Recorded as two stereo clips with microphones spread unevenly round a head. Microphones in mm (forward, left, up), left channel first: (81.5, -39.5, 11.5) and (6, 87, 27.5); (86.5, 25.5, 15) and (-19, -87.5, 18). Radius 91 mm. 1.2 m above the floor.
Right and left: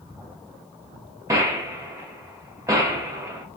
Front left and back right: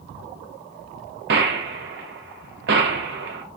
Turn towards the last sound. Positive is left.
turn(degrees=-165)